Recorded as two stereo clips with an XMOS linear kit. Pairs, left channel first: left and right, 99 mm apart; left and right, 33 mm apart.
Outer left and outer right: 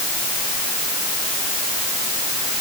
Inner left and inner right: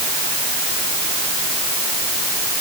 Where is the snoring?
No snoring in this recording.